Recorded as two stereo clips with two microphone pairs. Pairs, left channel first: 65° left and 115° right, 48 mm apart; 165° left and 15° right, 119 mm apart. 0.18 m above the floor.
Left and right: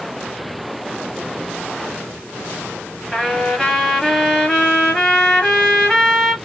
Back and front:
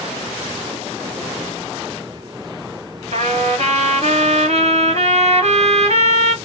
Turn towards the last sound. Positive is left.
turn(degrees=-20)